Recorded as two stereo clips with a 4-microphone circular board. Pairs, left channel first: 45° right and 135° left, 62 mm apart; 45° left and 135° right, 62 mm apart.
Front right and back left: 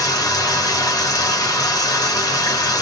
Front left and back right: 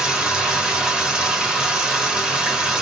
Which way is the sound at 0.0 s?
60° right.